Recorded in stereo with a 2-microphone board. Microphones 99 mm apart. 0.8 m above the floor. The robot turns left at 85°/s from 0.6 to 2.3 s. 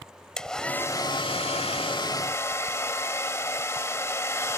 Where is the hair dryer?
175° left; by 4.6 s 30° left.